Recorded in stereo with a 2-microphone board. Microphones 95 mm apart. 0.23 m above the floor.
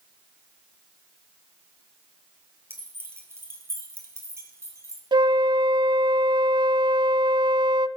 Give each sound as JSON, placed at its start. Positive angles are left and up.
{"t": 2.7, "sound": "keys jangling", "side_deg": -25, "distance_m": 3.5}
{"t": 5.1, "sound": "a flute", "side_deg": -55, "distance_m": 0.6}